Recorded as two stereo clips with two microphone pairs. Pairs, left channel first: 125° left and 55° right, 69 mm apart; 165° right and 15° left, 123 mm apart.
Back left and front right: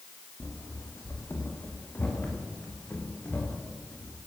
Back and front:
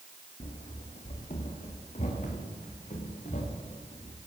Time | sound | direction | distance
0.4 | running footsteps | straight behind | 4.5 m